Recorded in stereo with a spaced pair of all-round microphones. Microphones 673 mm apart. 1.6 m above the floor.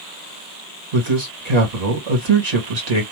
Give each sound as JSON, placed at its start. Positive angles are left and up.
{"t": 0.9, "sound": "a man speaking", "side_deg": -75, "distance_m": 1.4}